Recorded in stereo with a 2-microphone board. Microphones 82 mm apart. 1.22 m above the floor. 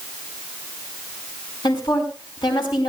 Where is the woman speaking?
75° left (ahead or behind), 4.5 m.